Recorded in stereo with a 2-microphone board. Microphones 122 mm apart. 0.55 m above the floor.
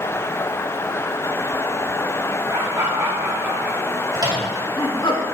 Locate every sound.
2.5 s laughter: 40° right (ahead or behind), 1.7 m; by 5.1 s 50° left (ahead or behind), 1.5 m
4.1 s a microwave: 35° right (ahead or behind), 3 m